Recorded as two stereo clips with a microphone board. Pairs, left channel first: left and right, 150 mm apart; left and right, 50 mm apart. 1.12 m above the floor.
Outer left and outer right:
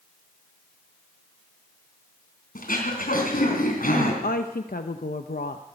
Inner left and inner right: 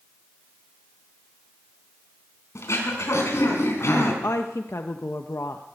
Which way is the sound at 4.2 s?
80° left.